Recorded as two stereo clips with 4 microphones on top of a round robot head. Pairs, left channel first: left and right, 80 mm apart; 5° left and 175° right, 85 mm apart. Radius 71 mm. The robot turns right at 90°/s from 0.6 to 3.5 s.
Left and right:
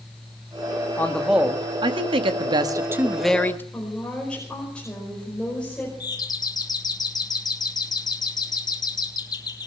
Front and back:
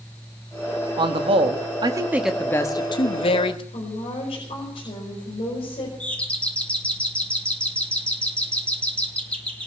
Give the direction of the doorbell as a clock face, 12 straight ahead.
9 o'clock.